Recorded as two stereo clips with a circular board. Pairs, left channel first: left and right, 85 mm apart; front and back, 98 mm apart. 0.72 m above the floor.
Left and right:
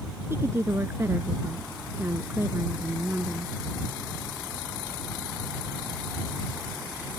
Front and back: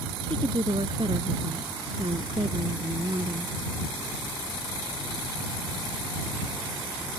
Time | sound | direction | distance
0.3 | a woman speaking | 150° right | ?